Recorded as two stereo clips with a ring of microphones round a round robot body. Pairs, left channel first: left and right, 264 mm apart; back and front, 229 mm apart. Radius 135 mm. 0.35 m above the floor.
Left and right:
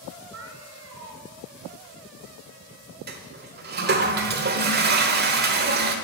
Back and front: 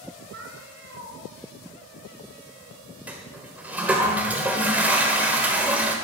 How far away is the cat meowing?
About 2 m.